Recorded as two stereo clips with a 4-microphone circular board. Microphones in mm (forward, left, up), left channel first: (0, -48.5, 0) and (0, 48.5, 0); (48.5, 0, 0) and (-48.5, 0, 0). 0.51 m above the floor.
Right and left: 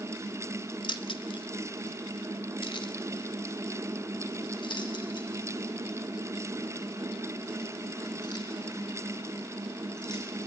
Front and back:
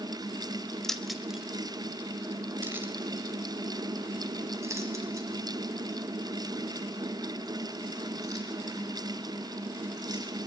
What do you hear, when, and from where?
0.8 s keys jangling: 85° right, 1.1 m; by 10.2 s 130° right, 6.5 m